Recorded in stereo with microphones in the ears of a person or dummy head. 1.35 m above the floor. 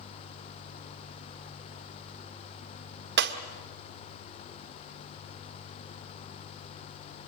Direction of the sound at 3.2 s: 60° right (ahead or behind).